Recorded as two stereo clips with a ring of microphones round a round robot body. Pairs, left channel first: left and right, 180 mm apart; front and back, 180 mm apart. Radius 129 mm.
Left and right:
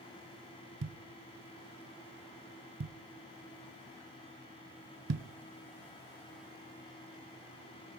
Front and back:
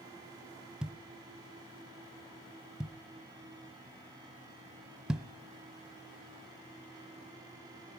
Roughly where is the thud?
Right.